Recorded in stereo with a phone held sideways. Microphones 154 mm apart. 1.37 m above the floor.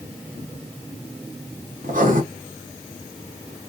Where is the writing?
60° right (ahead or behind), 0.9 m.